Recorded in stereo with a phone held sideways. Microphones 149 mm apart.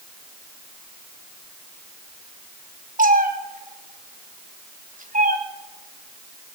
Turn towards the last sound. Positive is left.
turn(degrees=-65)  # may be behind; listen again after turning